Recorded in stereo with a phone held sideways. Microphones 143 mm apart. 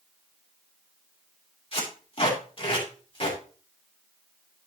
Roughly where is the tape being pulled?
Left.